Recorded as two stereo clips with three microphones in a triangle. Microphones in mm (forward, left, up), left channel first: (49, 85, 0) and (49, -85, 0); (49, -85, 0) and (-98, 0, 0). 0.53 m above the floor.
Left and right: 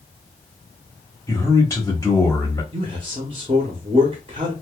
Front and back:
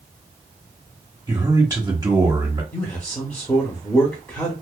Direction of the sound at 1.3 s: 125° left.